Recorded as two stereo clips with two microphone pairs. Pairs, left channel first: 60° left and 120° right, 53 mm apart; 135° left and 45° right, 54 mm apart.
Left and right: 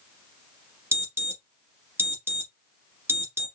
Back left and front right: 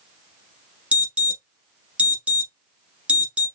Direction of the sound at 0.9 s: 105° right.